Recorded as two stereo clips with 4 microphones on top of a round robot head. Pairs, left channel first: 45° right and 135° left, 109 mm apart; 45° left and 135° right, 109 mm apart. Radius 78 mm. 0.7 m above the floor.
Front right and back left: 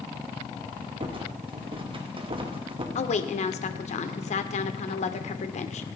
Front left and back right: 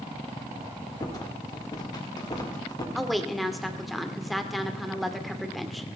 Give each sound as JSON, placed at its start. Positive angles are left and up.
{"t": 1.0, "sound": "a rattle", "azimuth_deg": 100, "distance_m": 2.5}
{"t": 3.0, "sound": "a woman speaking", "azimuth_deg": -45, "distance_m": 1.8}